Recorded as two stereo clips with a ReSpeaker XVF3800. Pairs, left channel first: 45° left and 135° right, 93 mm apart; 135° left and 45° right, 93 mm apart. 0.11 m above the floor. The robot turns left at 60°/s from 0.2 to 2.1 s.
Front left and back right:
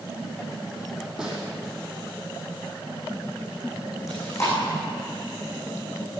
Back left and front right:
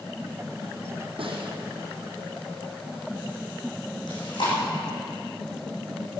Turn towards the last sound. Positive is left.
turn(degrees=100)